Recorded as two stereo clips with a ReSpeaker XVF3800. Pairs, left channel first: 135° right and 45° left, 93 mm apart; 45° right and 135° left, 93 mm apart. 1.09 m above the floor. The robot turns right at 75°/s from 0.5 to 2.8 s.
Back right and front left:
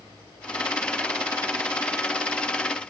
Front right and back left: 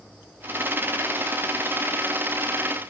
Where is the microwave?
No microwave in this recording.